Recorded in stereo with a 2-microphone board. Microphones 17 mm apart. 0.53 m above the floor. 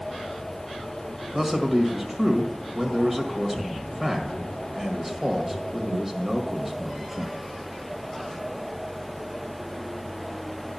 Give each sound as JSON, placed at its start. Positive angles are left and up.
{"t": 1.3, "sound": "a man speaking", "side_deg": -20, "distance_m": 1.8}